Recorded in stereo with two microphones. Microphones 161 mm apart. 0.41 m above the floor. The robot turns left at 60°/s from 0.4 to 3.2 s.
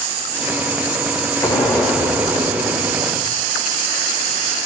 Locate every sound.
1.4 s an explosion: 20° left, 1.4 m; by 3.5 s 85° right, 1.4 m